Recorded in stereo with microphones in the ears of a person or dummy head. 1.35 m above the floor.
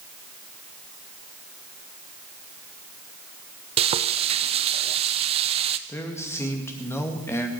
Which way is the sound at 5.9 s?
10° left (ahead or behind).